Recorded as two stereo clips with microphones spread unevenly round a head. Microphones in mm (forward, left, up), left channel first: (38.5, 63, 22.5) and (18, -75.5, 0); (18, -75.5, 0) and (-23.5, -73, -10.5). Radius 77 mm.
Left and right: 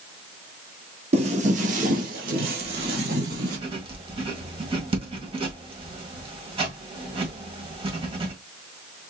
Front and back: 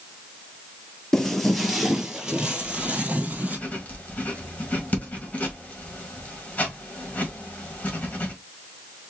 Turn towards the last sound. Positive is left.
turn(degrees=-45)